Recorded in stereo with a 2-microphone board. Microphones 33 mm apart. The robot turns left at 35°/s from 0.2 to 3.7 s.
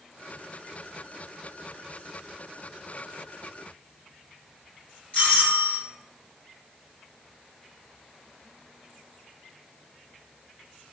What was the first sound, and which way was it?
A doorbell, 40° left (ahead or behind).